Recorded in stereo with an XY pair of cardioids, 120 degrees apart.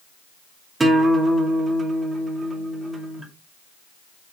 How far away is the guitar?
About 2.5 m.